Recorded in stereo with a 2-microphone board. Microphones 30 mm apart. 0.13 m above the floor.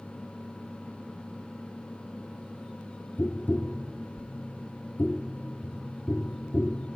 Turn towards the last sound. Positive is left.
turn(degrees=65)  # may be behind; listen again after turning